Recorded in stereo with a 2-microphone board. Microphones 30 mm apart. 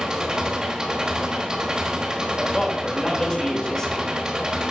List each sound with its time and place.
0.0 s an engine running: 25° right (ahead or behind), 1.2 m
2.4 s a man speaking: 25° left (ahead or behind), 2.5 m